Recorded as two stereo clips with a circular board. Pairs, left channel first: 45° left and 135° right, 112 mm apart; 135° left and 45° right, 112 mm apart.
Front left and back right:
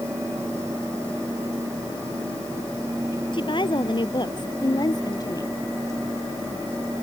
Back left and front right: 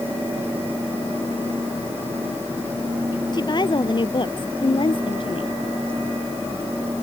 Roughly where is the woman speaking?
Left.